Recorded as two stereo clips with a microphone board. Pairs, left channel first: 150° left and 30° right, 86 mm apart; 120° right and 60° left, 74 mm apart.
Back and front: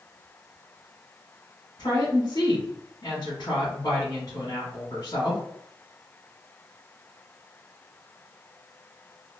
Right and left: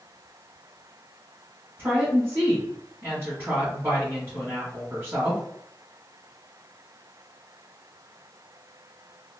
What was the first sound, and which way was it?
A woman speaking, 115° left.